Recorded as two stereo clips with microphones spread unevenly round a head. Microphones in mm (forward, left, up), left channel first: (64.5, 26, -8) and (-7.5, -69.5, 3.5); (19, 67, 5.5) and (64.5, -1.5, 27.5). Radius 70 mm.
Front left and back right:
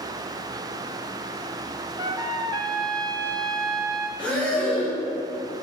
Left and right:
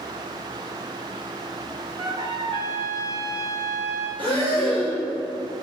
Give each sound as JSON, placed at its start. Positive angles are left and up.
{"t": 2.0, "sound": "a trumpet", "azimuth_deg": -85, "distance_m": 0.7}
{"t": 4.2, "sound": "breathing", "azimuth_deg": -30, "distance_m": 2.5}